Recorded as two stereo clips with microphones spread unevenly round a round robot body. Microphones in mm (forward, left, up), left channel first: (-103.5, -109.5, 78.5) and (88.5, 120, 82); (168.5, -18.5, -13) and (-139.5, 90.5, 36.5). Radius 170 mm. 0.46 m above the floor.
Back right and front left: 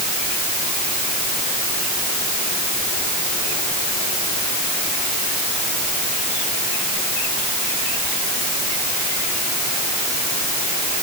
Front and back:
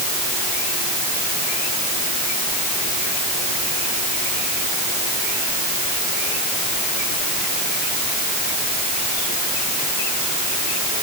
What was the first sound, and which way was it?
Only background noise.